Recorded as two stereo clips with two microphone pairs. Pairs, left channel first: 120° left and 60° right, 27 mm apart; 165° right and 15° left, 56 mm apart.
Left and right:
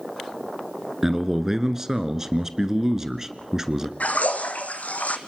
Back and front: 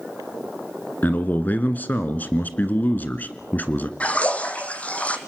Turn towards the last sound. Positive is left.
turn(degrees=130)